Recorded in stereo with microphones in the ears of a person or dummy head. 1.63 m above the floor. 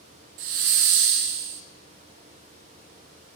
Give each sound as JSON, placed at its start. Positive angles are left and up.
{"t": 0.4, "sound": "a hiss", "side_deg": -45, "distance_m": 0.8}